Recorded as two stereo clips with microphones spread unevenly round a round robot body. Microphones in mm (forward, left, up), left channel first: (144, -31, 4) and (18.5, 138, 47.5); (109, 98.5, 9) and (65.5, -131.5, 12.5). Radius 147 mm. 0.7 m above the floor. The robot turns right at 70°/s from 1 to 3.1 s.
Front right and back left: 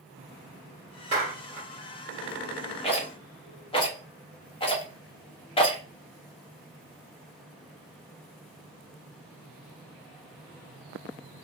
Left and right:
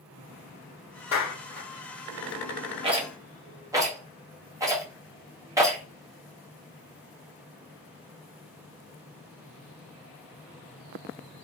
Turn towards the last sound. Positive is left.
turn(degrees=-30)